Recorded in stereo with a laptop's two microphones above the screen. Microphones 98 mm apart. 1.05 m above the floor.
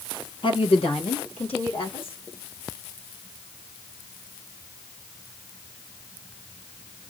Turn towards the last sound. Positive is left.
turn(degrees=70)  # may be behind; listen again after turning